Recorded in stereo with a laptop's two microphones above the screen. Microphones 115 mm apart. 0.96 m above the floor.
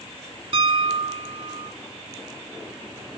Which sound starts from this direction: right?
A piano, at 0.5 s.